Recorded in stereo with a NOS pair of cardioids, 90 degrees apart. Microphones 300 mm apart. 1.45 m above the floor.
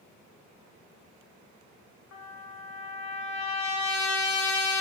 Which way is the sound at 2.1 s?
65° left.